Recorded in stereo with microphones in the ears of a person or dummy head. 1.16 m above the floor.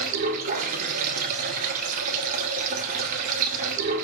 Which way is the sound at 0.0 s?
50° right (ahead or behind).